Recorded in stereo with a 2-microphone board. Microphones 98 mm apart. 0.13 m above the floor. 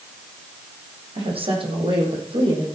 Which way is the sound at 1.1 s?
70° right (ahead or behind).